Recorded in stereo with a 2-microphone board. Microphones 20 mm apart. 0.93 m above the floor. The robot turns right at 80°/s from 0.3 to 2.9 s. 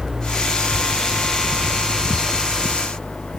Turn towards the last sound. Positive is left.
turn(degrees=50)